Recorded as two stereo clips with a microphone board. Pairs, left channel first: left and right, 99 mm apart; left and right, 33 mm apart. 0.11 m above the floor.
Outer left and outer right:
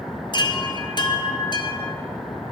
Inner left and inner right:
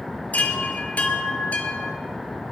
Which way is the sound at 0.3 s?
50° left (ahead or behind).